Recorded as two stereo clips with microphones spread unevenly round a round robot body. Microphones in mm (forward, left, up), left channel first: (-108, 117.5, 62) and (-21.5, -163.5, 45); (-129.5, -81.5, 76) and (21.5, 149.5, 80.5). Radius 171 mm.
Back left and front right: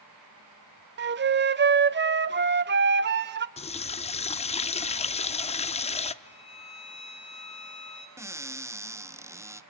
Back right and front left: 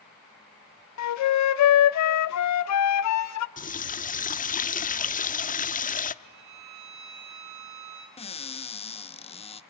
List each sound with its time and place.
1.0 s a flute: 125° right, 0.9 m
3.6 s a running tap: 175° left, 0.8 m
6.2 s a violin: 35° left, 2.5 m
8.2 s a cupboard door: 125° right, 0.8 m